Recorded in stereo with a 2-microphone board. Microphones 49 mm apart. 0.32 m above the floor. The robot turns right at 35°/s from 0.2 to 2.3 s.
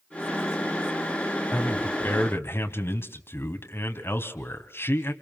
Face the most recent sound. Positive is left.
turn(degrees=55)  # may be behind; listen again after turning